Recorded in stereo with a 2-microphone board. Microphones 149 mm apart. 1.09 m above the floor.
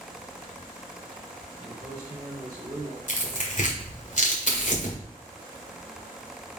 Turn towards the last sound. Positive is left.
turn(degrees=55)  # may be behind; listen again after turning